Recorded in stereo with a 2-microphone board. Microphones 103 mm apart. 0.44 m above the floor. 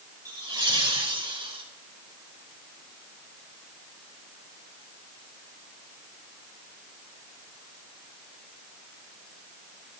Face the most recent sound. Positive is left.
turn(degrees=-60)  # may be behind; listen again after turning